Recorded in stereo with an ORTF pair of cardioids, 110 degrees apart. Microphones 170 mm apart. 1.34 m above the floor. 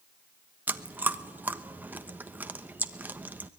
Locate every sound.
0.7 s chewing: 10° right, 1.1 m